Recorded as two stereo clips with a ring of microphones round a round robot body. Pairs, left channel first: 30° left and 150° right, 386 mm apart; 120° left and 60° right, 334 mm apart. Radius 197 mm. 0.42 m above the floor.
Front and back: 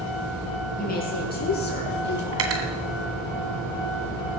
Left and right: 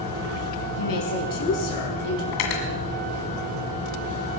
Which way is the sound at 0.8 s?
100° left.